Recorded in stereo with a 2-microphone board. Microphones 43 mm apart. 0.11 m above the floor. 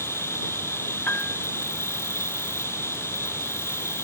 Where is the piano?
40° left (ahead or behind).